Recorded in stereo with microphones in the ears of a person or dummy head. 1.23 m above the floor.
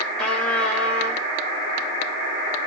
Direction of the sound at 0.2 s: 10° left (ahead or behind).